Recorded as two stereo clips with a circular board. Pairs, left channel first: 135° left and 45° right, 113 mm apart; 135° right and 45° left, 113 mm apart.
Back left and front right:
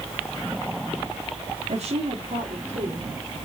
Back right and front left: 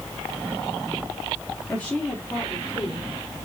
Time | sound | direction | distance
1.7 | a woman speaking | 55° right | 1.7 m